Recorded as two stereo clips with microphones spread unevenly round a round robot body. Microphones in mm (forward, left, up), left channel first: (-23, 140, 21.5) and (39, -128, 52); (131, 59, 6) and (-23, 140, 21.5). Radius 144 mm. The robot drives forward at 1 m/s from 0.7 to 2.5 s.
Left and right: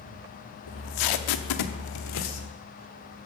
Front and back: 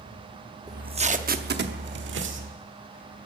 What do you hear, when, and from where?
0.7 s tape being pulled: 80° left, 1.1 m; by 2.5 s 145° left, 1.9 m